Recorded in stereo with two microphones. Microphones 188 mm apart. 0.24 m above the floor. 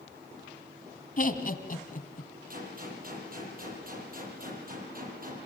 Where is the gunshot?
50° right (ahead or behind), 7 m.